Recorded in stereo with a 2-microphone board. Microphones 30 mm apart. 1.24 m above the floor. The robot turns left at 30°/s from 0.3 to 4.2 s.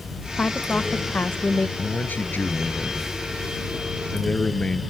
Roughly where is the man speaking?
Left.